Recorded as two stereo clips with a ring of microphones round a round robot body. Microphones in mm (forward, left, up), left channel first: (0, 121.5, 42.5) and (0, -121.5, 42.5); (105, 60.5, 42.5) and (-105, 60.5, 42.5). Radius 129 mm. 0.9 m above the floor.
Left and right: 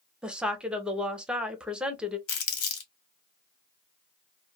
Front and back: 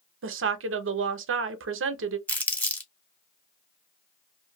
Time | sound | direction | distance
0.2 | a woman speaking | 175° right | 0.6 m
2.3 | crumpling | 80° left | 1.3 m